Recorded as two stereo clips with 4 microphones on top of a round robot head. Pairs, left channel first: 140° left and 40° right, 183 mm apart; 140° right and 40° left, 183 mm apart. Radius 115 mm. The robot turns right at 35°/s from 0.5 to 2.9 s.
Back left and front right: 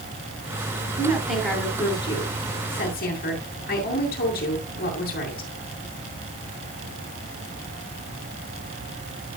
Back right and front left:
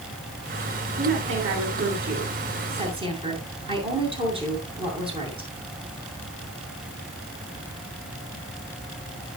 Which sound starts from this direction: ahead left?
A woman speaking, at 1.0 s.